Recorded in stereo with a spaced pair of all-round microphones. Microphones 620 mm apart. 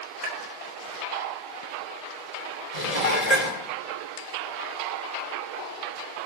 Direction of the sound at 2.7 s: 75° left (ahead or behind).